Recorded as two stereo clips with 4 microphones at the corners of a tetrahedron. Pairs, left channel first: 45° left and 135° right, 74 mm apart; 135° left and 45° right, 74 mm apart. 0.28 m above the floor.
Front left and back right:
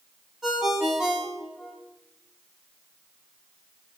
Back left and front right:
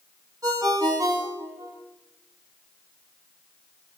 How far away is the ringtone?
About 1.4 m.